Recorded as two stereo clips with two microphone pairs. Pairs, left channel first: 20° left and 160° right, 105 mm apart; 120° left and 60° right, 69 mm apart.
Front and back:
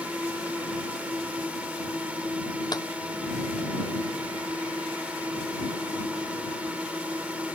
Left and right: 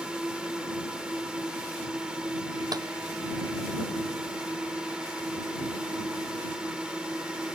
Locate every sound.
0.0 s a drone: 110° right
2.7 s a clap: 35° right